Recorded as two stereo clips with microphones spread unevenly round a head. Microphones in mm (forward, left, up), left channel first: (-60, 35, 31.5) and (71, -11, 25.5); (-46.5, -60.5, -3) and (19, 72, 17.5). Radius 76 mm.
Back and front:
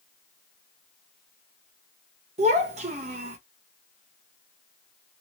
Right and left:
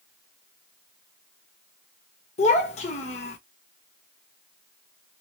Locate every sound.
2.4 s a child speaking: 65° right, 1.0 m